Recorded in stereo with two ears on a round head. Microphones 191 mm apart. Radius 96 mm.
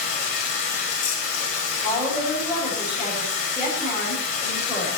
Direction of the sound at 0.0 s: 35° left (ahead or behind).